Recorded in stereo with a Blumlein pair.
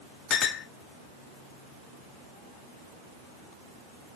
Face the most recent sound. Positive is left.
turn(degrees=25)